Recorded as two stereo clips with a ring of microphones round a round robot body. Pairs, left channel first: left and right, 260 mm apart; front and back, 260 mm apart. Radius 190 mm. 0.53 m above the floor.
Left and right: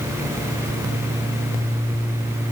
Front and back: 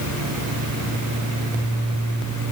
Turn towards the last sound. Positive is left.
No sound to turn to.